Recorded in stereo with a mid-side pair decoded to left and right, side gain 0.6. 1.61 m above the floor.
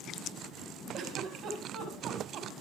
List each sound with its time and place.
0.9 s a giggle: 50° right, 5 m